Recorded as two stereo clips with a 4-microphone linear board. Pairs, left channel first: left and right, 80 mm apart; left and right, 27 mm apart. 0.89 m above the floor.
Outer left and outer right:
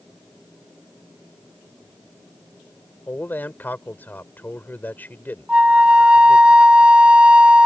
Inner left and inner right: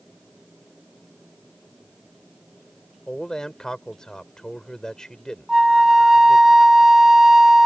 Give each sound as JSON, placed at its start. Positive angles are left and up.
{"t": 3.1, "sound": "a man speaking", "side_deg": 25}
{"t": 5.5, "sound": "a flute", "side_deg": -15}